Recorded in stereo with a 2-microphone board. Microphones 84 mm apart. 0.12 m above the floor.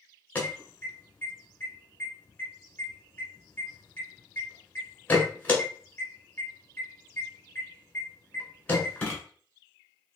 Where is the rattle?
No rattle in this recording.